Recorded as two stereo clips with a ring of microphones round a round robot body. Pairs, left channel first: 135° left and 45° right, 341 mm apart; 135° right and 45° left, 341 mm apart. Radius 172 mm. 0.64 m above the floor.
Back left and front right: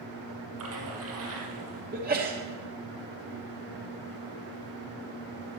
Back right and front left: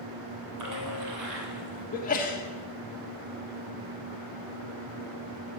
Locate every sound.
0.6 s a splash: 5° left, 3 m
1.9 s a sneeze: 85° right, 1.3 m